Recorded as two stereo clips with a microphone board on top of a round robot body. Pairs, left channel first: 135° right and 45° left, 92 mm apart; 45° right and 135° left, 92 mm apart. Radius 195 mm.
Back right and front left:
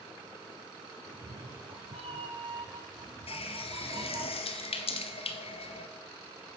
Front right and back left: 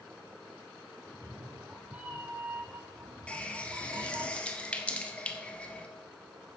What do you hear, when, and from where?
1.1 s a cat meowing: 40° left, 1.2 m; by 4.3 s 75° left, 3 m
3.3 s a running tap: 125° right, 1.2 m